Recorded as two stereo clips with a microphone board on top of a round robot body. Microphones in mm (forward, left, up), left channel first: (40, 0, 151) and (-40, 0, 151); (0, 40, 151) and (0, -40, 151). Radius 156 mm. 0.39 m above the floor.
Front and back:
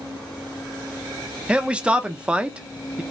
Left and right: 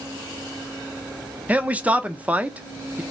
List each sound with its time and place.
1.5 s a man speaking: 125° right, 0.8 m